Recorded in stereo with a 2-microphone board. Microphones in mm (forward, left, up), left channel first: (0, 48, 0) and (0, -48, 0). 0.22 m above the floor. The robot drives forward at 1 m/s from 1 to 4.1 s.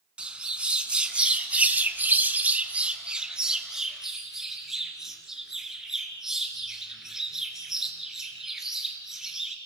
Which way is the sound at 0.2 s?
10° right (ahead or behind).